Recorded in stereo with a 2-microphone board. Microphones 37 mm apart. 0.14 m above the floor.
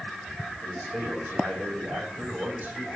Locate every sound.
0.6 s a man speaking: 55° right (ahead or behind), 8.5 m